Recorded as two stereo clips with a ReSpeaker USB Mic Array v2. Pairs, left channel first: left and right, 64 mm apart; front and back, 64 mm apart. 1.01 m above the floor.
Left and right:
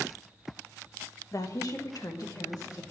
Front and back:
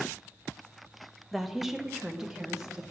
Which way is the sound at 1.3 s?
90° left.